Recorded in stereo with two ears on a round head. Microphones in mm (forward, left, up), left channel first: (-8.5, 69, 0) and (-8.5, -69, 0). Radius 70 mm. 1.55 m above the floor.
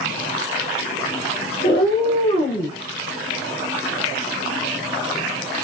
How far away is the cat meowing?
About 2 m.